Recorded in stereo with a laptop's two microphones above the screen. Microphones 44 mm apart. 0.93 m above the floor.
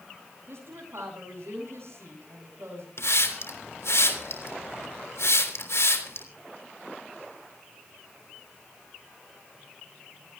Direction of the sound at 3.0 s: 80° left.